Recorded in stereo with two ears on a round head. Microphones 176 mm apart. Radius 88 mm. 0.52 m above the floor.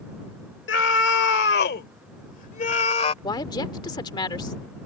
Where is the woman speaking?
20° left (ahead or behind).